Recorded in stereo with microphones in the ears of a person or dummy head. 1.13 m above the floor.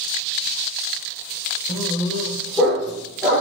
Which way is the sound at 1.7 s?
5° right (ahead or behind).